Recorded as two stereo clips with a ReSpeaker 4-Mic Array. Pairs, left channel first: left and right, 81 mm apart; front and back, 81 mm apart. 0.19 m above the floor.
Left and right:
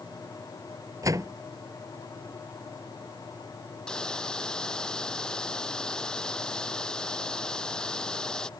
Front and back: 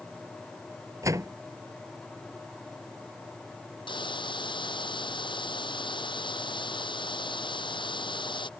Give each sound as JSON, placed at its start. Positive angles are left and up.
{"t": 1.0, "sound": "a door slam", "azimuth_deg": -135}
{"t": 3.9, "sound": "a hiss", "azimuth_deg": 10}